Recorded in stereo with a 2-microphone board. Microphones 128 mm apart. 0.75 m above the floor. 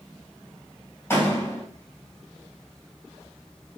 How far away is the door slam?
About 3 m.